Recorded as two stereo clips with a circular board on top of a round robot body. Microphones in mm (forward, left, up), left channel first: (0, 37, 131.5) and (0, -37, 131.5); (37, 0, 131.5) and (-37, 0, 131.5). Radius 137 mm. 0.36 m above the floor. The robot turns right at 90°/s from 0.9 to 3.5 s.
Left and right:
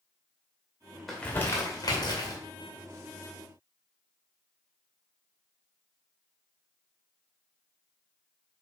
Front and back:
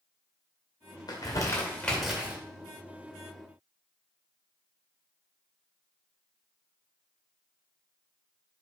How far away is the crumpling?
About 2.5 m.